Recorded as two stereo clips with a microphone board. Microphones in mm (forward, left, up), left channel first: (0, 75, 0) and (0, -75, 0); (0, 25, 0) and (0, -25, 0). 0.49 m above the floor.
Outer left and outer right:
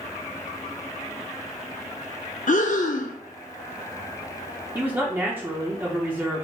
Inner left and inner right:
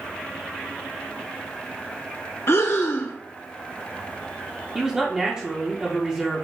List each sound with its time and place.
2.5 s breathing: 60° left (ahead or behind), 0.5 m
4.8 s a man speaking: 15° right (ahead or behind), 0.8 m